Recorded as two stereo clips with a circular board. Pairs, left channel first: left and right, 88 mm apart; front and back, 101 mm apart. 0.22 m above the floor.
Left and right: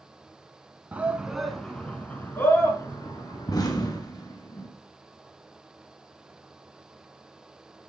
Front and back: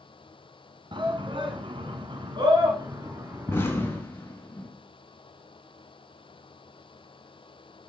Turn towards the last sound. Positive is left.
turn(degrees=60)